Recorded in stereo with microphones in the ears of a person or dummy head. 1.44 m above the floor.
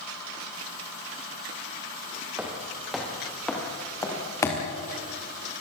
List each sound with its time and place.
2.4 s footsteps: 5° right (ahead or behind), 4.5 m; by 4.6 s 20° left (ahead or behind), 5 m